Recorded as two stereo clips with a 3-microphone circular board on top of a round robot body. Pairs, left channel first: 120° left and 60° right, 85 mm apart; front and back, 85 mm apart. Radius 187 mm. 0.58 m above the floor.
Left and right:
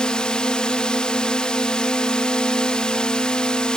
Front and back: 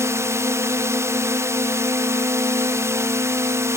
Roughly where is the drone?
Behind.